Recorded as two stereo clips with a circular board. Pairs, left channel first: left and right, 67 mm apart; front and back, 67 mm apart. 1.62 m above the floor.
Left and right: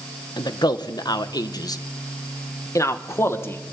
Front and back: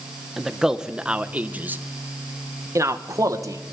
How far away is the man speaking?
About 2.0 m.